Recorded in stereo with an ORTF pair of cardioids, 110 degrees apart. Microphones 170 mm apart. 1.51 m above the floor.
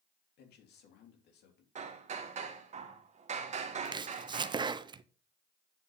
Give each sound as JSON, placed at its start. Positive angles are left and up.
{"t": 0.4, "sound": "a man speaking", "azimuth_deg": 70, "distance_m": 3.0}
{"t": 1.8, "sound": "hammering", "azimuth_deg": -40, "distance_m": 1.8}
{"t": 3.9, "sound": "chopping", "azimuth_deg": -25, "distance_m": 0.7}